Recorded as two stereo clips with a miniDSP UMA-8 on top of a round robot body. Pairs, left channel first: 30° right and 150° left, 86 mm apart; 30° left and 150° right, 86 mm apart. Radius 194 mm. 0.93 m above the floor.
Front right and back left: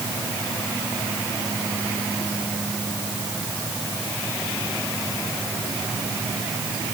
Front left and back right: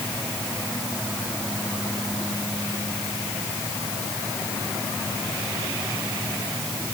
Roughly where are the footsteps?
I don't hear footsteps.